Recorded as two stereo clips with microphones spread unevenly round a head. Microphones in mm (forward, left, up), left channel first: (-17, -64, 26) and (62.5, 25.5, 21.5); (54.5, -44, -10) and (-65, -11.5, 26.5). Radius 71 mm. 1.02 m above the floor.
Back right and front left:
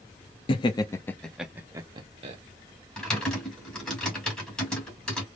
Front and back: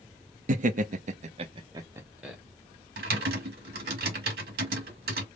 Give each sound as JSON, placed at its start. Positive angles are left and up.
{"t": 0.5, "sound": "laughter", "azimuth_deg": -170, "distance_m": 0.7}
{"t": 3.0, "sound": "typing on a keyboard", "azimuth_deg": 140, "distance_m": 1.7}